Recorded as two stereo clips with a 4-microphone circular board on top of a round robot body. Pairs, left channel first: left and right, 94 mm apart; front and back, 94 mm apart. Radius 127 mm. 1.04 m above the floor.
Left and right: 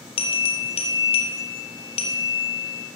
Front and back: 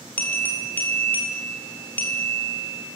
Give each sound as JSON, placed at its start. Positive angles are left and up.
{"t": 0.2, "sound": "a bell", "azimuth_deg": 75, "distance_m": 1.6}